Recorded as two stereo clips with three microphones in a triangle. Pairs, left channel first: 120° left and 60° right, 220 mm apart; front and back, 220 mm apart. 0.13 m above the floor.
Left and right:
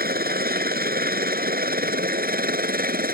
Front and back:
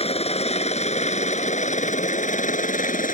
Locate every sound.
0.0 s a helicopter: 50° right; by 3.1 s 35° right